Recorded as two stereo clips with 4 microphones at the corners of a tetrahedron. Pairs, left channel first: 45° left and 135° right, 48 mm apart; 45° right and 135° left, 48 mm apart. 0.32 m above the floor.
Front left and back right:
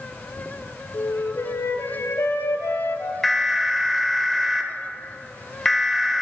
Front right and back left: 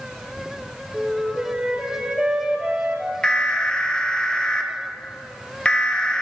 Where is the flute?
65° left, 1.6 m.